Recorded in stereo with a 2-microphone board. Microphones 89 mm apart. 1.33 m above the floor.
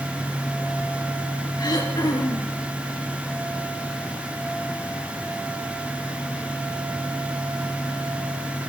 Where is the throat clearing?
50° left (ahead or behind), 5.5 m.